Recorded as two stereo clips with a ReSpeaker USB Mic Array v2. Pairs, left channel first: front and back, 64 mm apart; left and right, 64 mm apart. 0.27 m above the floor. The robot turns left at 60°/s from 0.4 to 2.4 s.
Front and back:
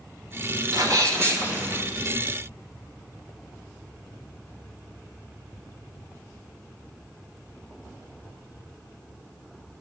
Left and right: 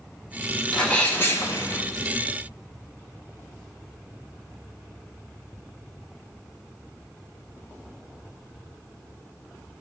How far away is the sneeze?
About 3 m.